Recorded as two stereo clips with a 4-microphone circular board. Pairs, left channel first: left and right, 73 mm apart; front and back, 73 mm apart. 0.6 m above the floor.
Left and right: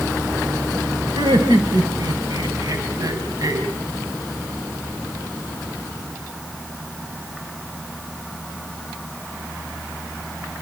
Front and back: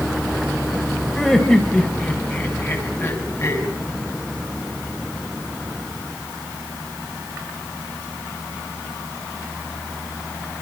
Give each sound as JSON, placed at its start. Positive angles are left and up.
{"t": 1.1, "sound": "laughter", "azimuth_deg": -85, "distance_m": 3.0}